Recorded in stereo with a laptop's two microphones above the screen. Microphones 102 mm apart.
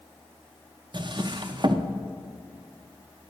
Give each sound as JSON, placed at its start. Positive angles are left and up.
{"t": 0.9, "sound": "a drawer", "side_deg": -45, "distance_m": 0.5}